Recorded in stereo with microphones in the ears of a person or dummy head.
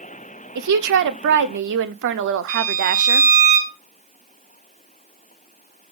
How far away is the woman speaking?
About 0.7 m.